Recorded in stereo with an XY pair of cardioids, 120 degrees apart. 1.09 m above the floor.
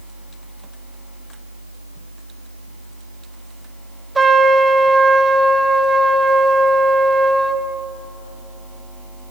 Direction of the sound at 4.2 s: 20° right.